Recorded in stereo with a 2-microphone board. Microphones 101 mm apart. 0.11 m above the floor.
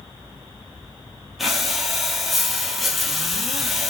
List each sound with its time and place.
1.4 s breathing: centre (ahead or behind), 0.8 m